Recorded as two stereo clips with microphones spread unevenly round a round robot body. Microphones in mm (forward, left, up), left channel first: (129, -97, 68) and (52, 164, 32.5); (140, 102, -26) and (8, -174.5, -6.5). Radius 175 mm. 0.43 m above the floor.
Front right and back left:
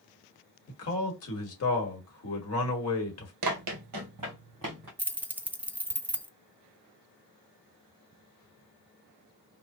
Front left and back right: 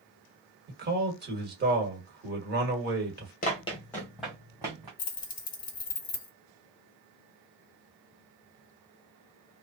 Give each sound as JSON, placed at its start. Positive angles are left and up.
{"t": 0.7, "sound": "a man speaking", "azimuth_deg": -65, "distance_m": 1.3}
{"t": 3.4, "sound": "running footsteps", "azimuth_deg": 125, "distance_m": 0.5}
{"t": 5.0, "sound": "keys jangling", "azimuth_deg": 40, "distance_m": 0.5}